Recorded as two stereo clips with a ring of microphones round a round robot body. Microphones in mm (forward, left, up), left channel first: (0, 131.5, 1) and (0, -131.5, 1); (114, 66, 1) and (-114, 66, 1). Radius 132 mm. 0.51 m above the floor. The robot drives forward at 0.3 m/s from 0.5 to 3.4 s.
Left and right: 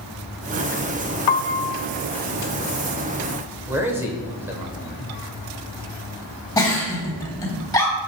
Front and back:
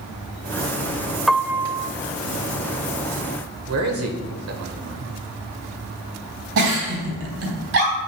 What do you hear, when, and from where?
1.3 s a piano: 90° left, 0.5 m; by 1.9 s 110° left, 0.5 m
3.7 s a man speaking: 170° right, 1.9 m
6.6 s a giggle: 165° left, 3.5 m